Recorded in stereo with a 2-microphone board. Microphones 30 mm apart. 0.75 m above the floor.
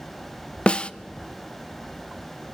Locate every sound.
0.7 s a snare drum: 35° left (ahead or behind), 0.5 m